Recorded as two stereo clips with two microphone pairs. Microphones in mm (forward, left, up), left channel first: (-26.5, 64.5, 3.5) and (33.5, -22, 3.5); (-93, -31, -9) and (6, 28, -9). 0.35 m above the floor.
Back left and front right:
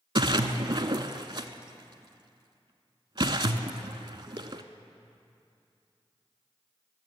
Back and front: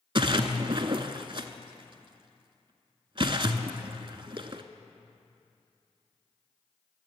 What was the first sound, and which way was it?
A splash, 15° right.